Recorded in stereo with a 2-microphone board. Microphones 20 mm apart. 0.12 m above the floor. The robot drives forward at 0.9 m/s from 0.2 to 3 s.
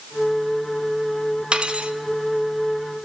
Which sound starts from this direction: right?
Cutlery clinking, at 1.5 s.